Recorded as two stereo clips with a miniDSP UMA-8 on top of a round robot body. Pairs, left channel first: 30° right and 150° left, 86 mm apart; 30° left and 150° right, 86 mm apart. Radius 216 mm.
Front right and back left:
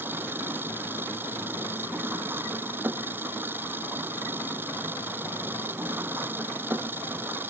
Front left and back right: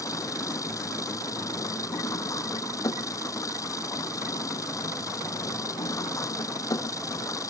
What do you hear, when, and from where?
0.0 s an engine running: 80° left